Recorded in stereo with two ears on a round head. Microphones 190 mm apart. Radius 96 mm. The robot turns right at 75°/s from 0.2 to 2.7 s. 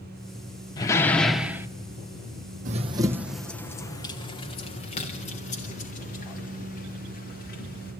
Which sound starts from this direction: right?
Running footsteps, at 2.6 s.